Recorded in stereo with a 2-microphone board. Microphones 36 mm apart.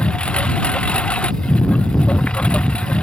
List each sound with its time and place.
0.0 s a lawn mower: 30° left (ahead or behind)